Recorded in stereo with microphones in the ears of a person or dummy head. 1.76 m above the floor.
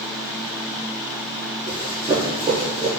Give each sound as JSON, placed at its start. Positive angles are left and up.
{"t": 1.7, "sound": "running footsteps", "side_deg": -20, "distance_m": 1.9}